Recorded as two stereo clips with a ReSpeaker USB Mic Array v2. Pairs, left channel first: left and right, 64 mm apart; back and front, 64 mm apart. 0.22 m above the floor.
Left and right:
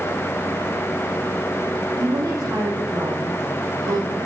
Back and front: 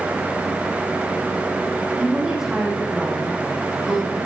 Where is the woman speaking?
70° right, 3 m.